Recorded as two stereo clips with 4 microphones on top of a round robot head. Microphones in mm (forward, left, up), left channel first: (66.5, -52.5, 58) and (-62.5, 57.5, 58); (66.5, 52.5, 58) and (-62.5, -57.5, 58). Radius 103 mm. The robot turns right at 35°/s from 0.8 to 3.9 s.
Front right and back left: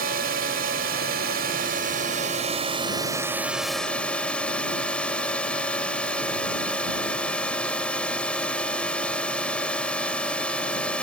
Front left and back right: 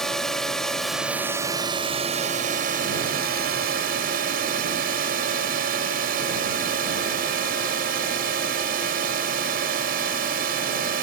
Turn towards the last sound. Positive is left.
turn(degrees=-125)